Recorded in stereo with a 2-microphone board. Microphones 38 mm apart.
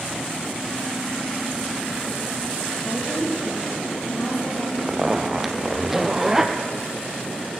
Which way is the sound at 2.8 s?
80° left.